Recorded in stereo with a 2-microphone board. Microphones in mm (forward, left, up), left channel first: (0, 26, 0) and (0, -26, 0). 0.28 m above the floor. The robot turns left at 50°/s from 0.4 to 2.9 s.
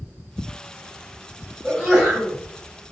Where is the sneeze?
160° right, 1.4 m; by 2.4 s 160° left, 1.4 m.